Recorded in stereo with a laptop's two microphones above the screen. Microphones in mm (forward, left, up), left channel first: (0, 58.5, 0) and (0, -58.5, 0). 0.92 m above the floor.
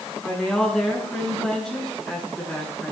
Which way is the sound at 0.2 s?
5° left (ahead or behind).